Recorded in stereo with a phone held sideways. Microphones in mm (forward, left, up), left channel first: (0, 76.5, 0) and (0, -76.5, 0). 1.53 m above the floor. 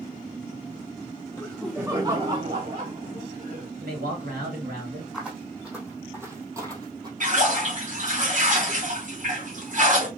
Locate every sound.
1.4 s laughter: 20° left (ahead or behind), 0.8 m; by 3.7 s 65° right (ahead or behind), 2 m
3.8 s a man speaking: 85° right, 2 m
5.1 s footsteps: 5° right (ahead or behind), 2.5 m; by 7.1 s 25° right (ahead or behind), 1.7 m
7.2 s a splash: 55° right (ahead or behind), 1.6 m